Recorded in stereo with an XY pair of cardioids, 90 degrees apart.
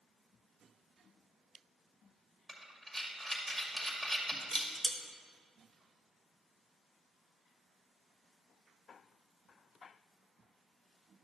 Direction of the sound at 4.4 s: 25° right.